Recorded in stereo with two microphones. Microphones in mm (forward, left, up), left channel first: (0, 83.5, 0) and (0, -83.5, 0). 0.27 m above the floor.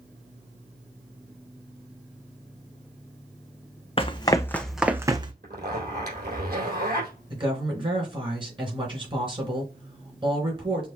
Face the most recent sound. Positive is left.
turn(degrees=-30)  # may be behind; listen again after turning